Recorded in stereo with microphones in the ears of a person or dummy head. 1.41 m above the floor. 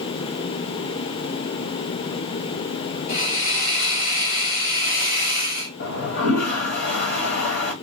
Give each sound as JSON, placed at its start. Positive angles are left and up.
{"t": 3.1, "sound": "a hiss", "side_deg": 70, "distance_m": 2.5}
{"t": 5.8, "sound": "a toilet flushing", "side_deg": 50, "distance_m": 1.0}